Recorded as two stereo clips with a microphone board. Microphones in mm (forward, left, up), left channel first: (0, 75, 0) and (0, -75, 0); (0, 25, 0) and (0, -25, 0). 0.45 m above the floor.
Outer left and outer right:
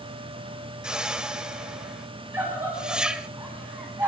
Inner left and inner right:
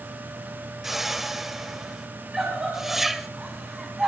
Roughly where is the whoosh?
Centre.